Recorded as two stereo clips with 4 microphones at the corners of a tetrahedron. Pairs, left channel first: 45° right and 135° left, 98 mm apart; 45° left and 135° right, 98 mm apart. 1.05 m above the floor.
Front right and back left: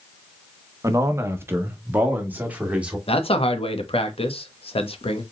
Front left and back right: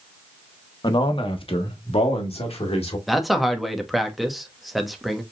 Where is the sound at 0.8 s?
80° left, 0.8 m; by 3.0 s 60° left, 2.0 m.